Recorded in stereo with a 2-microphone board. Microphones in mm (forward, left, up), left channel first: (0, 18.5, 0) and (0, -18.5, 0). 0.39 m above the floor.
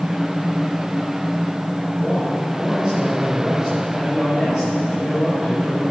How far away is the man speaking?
About 6 m.